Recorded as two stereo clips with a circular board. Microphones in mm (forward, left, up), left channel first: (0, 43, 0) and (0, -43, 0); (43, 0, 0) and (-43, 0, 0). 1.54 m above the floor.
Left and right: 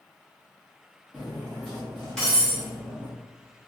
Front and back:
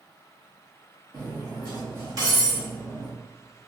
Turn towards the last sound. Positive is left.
turn(degrees=170)